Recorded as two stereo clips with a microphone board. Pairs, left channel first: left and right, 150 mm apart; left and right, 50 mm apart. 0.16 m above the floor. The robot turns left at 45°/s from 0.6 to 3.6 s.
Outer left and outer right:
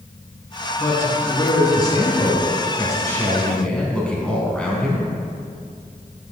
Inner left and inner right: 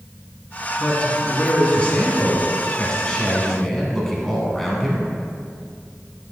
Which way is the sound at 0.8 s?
15° left (ahead or behind).